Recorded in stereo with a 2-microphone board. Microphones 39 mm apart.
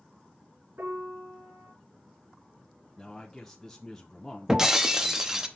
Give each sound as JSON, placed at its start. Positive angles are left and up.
{"t": 0.8, "sound": "a piano", "side_deg": -75, "distance_m": 4.0}
{"t": 3.0, "sound": "a man speaking", "side_deg": 15, "distance_m": 0.6}
{"t": 4.5, "sound": "breaking glass", "side_deg": -15, "distance_m": 0.7}